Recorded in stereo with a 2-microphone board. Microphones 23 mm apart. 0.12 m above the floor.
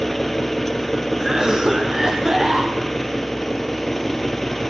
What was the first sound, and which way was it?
An engine running, 5° left (ahead or behind).